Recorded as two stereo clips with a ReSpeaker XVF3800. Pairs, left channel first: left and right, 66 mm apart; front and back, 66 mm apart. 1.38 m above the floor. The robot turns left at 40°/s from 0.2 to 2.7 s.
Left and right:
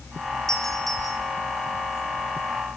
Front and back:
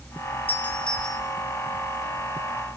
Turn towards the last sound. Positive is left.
turn(degrees=-145)